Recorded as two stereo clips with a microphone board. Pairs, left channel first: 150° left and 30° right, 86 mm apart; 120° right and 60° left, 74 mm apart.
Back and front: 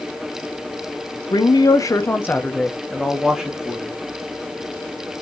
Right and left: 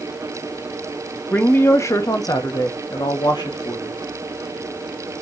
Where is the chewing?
I don't hear chewing.